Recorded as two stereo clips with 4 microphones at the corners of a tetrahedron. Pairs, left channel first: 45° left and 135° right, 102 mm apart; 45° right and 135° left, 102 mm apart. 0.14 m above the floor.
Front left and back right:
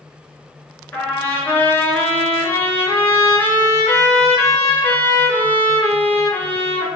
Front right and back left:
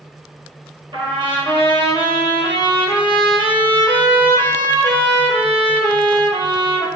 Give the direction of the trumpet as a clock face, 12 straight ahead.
8 o'clock.